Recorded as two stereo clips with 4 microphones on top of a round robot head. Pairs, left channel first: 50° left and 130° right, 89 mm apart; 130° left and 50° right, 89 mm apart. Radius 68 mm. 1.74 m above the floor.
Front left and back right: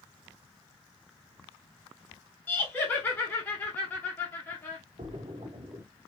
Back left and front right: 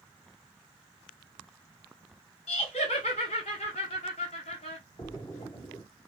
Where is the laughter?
120° left, 1.0 m.